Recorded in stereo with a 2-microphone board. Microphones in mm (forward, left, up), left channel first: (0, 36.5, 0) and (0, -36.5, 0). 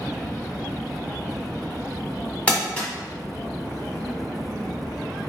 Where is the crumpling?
15° left (ahead or behind), 1.4 m.